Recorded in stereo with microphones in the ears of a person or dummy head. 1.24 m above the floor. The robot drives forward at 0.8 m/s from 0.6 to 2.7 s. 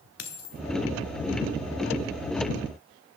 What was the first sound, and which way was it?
A dropped coin, 60° left (ahead or behind).